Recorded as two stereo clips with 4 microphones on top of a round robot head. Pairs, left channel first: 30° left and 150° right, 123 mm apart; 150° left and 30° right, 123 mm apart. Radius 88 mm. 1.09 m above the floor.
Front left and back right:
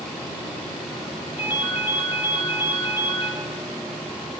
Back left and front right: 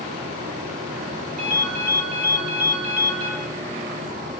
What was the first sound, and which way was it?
A ringtone, 25° right.